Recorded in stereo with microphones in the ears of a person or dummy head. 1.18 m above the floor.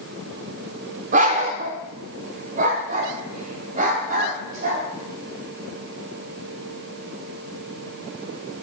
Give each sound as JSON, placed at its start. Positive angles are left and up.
{"t": 1.1, "sound": "a dog barking", "side_deg": -40, "distance_m": 1.2}